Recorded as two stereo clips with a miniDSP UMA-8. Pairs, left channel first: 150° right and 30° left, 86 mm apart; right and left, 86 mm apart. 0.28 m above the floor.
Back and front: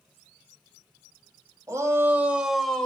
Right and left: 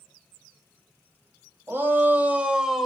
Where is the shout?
45° left, 1.2 m; by 2.9 s 170° left, 0.9 m.